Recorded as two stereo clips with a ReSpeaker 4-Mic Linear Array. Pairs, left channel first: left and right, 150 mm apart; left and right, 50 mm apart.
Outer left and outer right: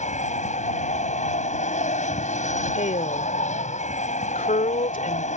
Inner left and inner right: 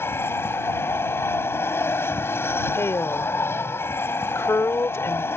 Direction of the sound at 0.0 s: 50° left (ahead or behind).